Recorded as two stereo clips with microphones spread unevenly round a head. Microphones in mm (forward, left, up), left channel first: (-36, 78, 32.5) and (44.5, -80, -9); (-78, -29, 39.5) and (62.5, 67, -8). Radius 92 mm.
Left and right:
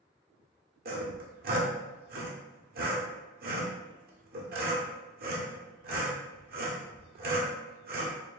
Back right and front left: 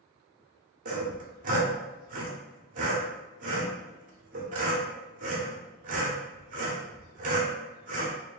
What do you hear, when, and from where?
0.8 s sawing: 20° right, 0.9 m